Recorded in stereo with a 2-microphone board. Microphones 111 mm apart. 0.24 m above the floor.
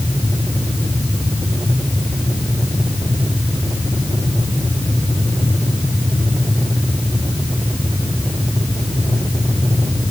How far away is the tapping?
I don't hear tapping.